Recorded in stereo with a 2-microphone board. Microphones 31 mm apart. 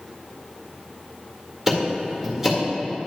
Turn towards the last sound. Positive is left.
turn(degrees=-15)  # may be behind; listen again after turning